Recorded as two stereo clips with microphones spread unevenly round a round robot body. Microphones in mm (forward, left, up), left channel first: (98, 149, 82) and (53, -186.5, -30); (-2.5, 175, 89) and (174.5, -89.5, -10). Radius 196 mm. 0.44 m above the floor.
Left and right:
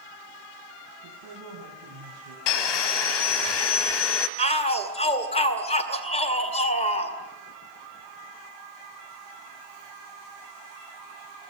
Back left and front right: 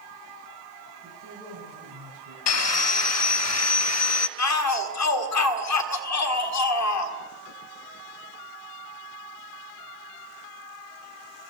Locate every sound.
1.0 s a man speaking: 105° right, 4.5 m; by 2.4 s 80° right, 5 m
2.5 s sawing: 80° left, 1.2 m
4.4 s a shout: 165° left, 1.9 m